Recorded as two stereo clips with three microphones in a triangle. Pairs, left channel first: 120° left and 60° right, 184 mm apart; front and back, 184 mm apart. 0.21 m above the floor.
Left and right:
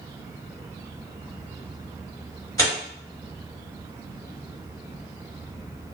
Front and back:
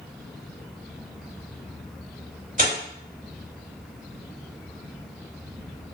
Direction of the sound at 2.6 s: Straight behind.